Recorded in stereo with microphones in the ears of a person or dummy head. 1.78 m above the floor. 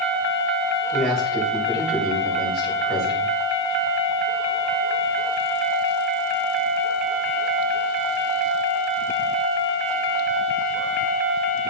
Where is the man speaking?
Centre (ahead or behind), 6 m.